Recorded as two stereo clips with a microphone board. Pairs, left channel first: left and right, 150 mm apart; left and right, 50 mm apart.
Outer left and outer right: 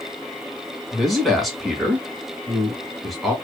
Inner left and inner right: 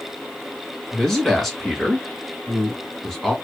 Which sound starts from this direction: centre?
A man speaking, at 0.9 s.